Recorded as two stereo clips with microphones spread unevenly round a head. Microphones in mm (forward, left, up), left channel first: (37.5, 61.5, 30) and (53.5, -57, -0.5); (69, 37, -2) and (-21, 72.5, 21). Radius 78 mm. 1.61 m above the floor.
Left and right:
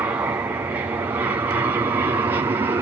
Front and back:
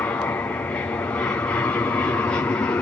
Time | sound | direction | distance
0.0 | an aircraft | 55° right | ?